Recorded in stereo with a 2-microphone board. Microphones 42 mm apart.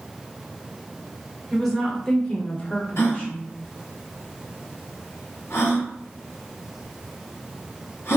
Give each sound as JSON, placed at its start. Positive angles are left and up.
{"t": 1.5, "sound": "a woman speaking", "side_deg": 0, "distance_m": 0.9}
{"t": 3.0, "sound": "a gasp", "side_deg": 85, "distance_m": 1.0}